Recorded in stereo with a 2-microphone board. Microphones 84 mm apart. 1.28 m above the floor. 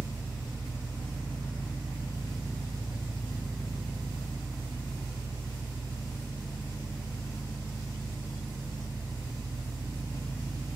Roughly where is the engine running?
Right.